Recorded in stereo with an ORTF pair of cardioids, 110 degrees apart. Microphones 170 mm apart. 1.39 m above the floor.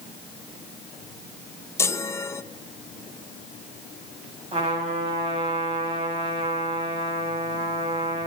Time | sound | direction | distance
1.8 | a chime | 15° left | 1.1 m
4.5 | a trumpet | 35° right | 8 m